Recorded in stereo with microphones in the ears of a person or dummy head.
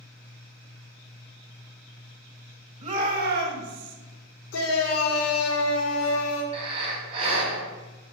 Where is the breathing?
30° right (ahead or behind), 3 m.